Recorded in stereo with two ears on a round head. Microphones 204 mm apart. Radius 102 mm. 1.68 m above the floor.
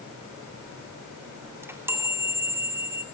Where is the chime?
10° right (ahead or behind), 2.5 m.